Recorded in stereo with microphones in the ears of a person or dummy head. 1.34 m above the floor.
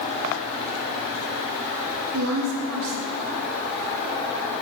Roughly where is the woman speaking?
Right.